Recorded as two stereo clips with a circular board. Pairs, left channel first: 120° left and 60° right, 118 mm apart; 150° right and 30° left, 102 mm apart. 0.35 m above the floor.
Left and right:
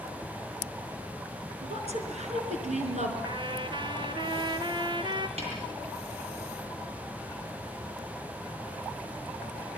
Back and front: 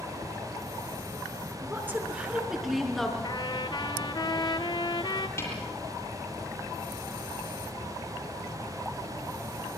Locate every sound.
1.6 s a woman speaking: 35° right, 5 m; by 3.1 s 65° right, 5 m
3.2 s a trumpet: 110° right, 1.6 m
5.4 s a snare drum: 85° right, 9.5 m